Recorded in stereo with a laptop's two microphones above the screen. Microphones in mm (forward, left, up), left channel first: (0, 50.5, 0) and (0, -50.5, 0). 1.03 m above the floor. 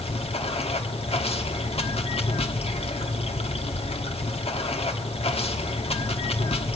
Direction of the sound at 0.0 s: 80° left.